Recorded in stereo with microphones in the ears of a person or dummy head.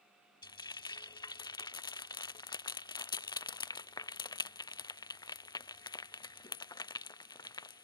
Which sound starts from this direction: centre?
Frying, at 0.4 s.